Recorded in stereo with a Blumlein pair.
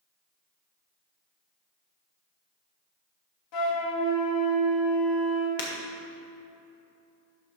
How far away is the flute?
About 1.9 m.